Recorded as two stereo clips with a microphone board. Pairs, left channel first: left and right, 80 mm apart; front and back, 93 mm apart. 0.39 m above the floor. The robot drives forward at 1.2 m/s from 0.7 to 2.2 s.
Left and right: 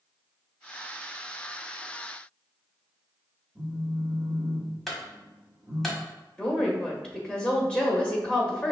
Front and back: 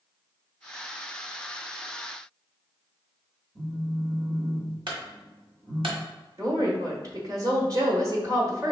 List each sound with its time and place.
3.5 s a phone buzzing: 140° right, 1.7 m
4.9 s a clunk: 175° left, 1.4 m
6.4 s a woman speaking: 165° left, 1.3 m